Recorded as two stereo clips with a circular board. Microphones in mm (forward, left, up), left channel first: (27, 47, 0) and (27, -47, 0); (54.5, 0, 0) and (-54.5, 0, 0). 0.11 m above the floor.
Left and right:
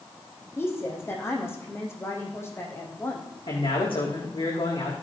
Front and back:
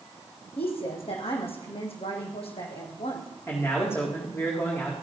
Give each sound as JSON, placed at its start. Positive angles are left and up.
{"t": 0.6, "sound": "a woman speaking", "azimuth_deg": 25, "distance_m": 4.5}
{"t": 3.5, "sound": "a man speaking", "azimuth_deg": 70, "distance_m": 6.0}